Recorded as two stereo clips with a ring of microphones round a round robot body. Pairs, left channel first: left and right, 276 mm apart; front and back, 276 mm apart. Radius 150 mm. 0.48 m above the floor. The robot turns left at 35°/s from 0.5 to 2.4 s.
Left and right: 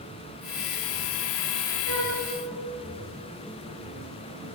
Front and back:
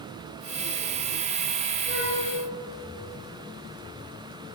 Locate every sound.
1.9 s a flute: 110° right, 6.5 m; by 2.2 s 120° right, 6.5 m